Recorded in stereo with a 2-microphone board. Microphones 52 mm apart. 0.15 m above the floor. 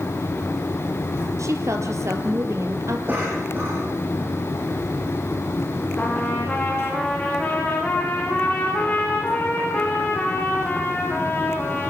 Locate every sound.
1.4 s a woman speaking: 60° right (ahead or behind), 3 m
3.1 s a cough: 40° right (ahead or behind), 8 m
6.0 s a trumpet: 25° left (ahead or behind), 6.5 m